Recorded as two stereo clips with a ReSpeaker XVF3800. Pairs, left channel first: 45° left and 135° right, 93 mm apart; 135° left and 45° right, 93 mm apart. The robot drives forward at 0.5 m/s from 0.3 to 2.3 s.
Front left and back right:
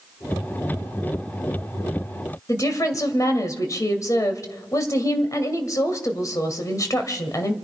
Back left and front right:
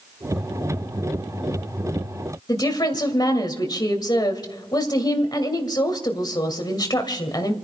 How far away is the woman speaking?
About 2 m.